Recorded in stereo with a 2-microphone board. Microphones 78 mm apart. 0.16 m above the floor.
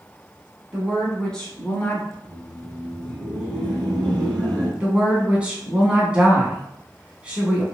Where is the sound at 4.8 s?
15° right (ahead or behind), 1.2 m.